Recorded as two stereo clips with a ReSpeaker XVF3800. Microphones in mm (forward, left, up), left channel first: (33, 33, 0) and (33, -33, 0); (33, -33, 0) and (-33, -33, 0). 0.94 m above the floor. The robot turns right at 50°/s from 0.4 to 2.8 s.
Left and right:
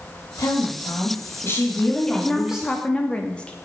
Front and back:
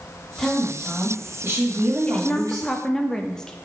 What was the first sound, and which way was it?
A woman speaking, 80° left.